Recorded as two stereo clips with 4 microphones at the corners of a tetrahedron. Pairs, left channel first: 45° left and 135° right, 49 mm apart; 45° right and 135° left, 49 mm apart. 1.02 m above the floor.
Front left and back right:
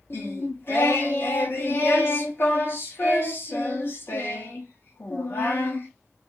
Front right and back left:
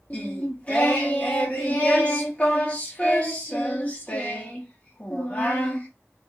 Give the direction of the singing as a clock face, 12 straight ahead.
11 o'clock.